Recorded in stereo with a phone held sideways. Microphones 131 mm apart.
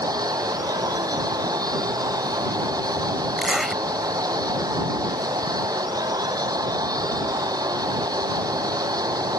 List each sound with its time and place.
0.0 s a machine running: 30° right (ahead or behind)
3.4 s a zipper: centre (ahead or behind)